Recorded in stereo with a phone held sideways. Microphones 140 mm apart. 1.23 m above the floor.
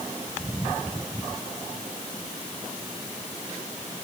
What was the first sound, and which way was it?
Only background noise.